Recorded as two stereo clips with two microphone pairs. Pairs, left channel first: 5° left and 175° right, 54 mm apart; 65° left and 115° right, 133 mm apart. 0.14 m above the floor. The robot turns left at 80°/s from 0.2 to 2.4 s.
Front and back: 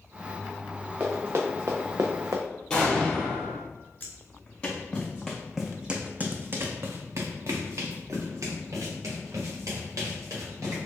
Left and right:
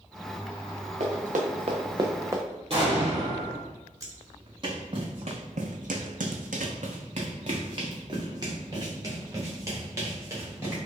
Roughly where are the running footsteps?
Right.